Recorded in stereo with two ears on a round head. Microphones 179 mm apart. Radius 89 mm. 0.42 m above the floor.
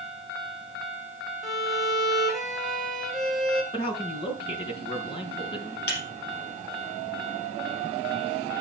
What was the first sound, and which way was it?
A violin, centre (ahead or behind).